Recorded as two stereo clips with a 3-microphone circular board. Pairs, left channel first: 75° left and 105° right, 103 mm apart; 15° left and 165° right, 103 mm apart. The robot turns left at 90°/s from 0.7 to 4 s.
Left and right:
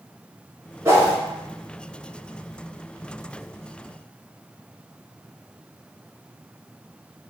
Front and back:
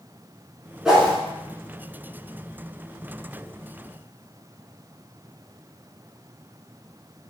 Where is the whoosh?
80° right, 0.7 m; by 1.1 s 110° right, 0.7 m.